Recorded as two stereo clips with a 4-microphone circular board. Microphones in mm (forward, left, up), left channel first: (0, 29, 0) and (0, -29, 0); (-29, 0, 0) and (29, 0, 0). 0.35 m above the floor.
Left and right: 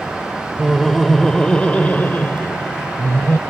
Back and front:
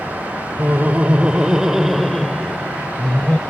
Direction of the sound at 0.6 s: 10° right.